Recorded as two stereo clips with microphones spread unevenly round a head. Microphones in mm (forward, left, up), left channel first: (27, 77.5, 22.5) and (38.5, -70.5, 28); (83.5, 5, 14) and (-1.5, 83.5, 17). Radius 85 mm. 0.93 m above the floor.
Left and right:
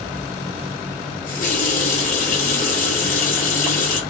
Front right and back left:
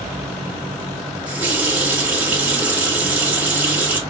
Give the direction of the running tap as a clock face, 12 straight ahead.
10 o'clock.